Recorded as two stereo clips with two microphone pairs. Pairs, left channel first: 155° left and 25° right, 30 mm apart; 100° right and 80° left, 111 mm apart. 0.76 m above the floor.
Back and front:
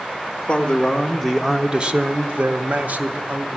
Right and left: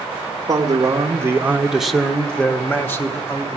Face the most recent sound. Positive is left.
turn(degrees=-35)